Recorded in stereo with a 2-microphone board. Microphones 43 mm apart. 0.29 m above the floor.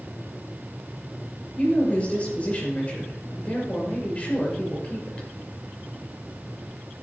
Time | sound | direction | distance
1.6 | a woman speaking | 30° left (ahead or behind) | 5.5 m